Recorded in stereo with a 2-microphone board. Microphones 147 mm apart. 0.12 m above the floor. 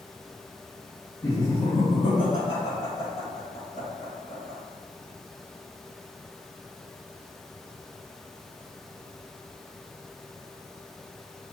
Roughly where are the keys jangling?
I don't hear keys jangling.